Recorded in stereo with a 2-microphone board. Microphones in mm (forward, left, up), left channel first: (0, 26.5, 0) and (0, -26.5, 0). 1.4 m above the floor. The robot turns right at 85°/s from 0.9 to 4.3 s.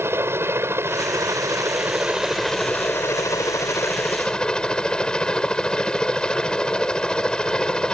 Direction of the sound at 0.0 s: 125° right.